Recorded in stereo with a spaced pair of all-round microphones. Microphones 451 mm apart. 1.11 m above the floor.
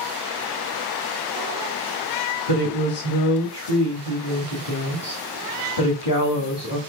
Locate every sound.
2.5 s a woman speaking: 60° left (ahead or behind), 2.0 m